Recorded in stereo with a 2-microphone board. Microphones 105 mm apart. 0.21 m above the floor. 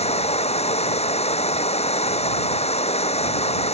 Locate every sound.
0.0 s running water: 85° left